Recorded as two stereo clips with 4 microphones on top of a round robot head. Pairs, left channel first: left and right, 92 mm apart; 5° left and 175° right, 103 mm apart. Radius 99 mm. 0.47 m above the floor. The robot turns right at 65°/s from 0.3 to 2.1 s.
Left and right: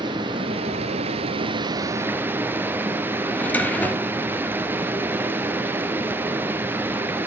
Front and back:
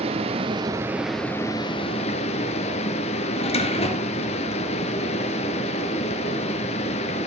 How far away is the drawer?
About 2.5 m.